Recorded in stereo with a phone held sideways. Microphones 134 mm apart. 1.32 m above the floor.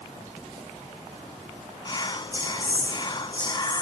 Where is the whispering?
30° left (ahead or behind).